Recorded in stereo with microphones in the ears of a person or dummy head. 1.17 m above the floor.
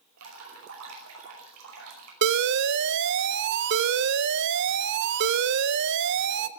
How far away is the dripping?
About 5 m.